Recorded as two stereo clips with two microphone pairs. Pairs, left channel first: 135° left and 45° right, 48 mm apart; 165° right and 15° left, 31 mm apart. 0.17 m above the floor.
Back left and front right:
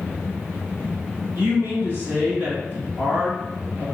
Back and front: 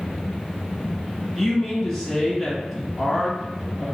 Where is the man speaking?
75° right, 1.9 m.